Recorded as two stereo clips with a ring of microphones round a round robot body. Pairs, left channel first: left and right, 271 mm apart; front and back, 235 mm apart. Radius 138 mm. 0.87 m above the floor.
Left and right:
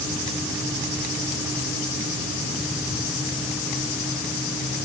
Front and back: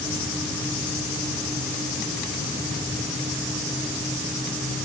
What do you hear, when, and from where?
Only background noise.